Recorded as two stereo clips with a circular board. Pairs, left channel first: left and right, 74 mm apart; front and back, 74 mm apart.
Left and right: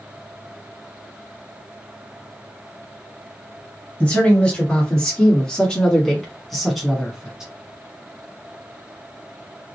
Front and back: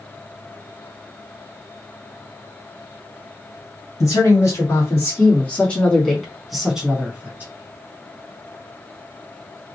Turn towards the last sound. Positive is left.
turn(degrees=-160)